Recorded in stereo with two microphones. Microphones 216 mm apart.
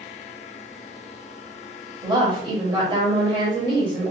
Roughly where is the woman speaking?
Right.